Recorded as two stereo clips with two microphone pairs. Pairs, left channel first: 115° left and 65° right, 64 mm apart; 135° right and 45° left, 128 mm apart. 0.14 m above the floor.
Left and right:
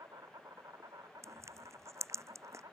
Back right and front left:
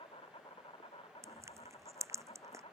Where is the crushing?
20° right.